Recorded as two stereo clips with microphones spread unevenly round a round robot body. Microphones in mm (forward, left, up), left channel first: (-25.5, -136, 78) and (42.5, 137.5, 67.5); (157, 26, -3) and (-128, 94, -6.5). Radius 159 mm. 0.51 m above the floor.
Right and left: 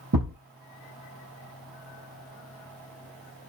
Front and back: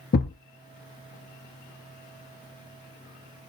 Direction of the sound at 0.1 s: 35° left.